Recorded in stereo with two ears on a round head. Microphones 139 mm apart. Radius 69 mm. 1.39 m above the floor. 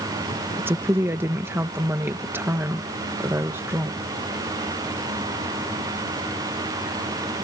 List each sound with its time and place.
0.6 s a woman speaking: 15° right (ahead or behind)